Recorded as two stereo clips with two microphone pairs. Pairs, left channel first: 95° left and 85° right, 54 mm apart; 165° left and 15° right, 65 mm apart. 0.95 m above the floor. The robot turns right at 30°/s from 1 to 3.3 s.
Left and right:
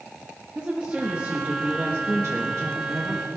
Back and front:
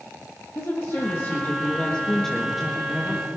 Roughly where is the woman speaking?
Behind right.